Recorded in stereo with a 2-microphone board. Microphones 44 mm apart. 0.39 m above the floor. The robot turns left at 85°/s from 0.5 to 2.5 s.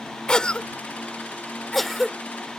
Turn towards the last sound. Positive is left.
turn(degrees=-20)  # may be behind; listen again after turning